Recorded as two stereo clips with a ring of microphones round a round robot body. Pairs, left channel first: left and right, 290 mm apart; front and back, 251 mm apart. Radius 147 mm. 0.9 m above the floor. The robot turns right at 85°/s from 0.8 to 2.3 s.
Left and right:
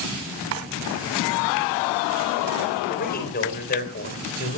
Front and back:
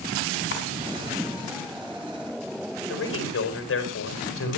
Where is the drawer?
50° right, 2.5 m.